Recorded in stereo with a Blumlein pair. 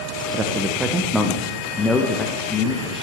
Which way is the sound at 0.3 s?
25° right.